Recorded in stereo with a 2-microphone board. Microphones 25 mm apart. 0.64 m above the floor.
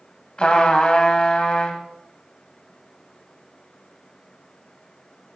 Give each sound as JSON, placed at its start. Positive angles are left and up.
{"t": 0.4, "sound": "a trumpet", "side_deg": 40, "distance_m": 1.3}